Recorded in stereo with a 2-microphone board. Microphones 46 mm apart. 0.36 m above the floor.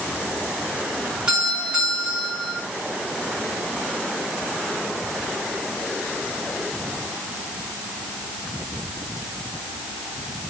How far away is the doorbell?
About 5 m.